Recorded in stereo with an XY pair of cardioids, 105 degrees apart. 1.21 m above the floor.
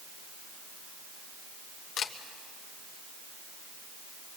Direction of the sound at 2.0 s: 70° left.